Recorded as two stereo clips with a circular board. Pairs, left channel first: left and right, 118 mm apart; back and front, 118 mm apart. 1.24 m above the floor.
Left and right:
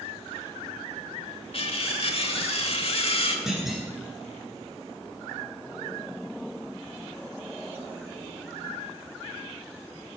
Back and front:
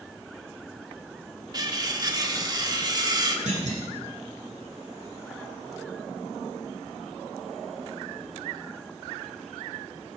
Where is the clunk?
5° right, 4 m.